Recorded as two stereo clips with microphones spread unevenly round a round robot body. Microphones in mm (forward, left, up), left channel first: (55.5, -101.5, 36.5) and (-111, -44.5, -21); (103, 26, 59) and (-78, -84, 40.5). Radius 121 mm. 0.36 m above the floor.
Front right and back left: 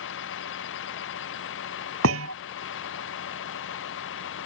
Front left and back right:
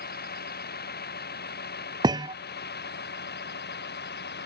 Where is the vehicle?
15° right; by 4.5 s 10° right.